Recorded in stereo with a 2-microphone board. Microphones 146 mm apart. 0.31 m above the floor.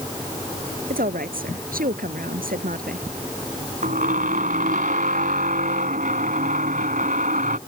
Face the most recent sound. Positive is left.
turn(degrees=-70)  # may be behind; listen again after turning